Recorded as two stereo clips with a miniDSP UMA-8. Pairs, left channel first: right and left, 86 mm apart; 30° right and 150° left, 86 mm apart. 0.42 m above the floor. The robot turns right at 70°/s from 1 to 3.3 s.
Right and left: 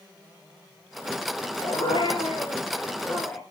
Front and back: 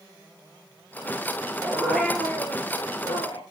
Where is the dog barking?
145° right, 2.5 m; by 3.4 s 25° right, 2.5 m.